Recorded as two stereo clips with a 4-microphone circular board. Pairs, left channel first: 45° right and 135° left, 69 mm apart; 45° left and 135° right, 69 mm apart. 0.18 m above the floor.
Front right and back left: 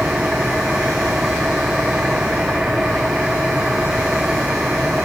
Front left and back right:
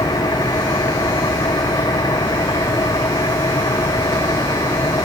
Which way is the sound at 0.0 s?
55° left.